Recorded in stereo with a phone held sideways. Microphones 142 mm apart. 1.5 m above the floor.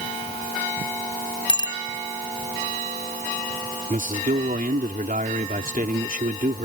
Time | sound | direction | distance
1.5 | a bicycle bell | 35° left (ahead or behind) | ?
3.9 | a man speaking | 80° right | ?